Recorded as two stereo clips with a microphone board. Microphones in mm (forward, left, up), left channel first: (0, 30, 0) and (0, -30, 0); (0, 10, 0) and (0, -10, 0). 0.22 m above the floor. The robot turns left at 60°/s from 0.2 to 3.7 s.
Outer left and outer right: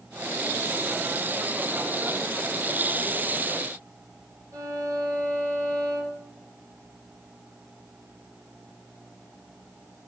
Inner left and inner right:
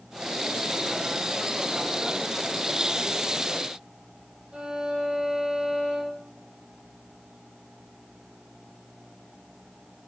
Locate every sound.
4.5 s a violin: 75° right (ahead or behind), 2.5 m